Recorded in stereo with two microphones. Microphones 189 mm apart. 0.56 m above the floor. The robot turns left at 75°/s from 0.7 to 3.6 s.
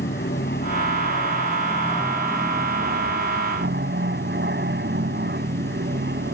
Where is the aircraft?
110° left; by 6.3 s 110° right.